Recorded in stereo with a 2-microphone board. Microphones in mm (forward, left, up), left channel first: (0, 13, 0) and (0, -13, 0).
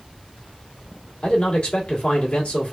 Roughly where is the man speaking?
Left.